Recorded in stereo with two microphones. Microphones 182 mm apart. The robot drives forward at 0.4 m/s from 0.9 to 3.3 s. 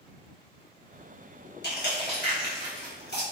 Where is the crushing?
65° left (ahead or behind), 1.1 m.